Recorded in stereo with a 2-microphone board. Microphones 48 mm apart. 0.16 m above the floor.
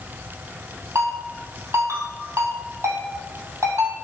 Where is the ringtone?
80° right, 2 m.